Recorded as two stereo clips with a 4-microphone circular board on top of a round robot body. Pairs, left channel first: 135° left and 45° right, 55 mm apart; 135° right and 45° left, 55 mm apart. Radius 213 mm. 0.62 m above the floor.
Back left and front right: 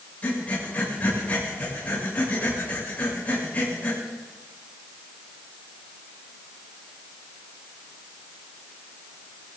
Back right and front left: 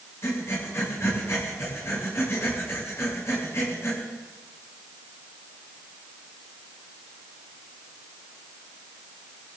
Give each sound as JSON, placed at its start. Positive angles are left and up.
{"t": 0.2, "sound": "breathing", "azimuth_deg": -165, "distance_m": 6.5}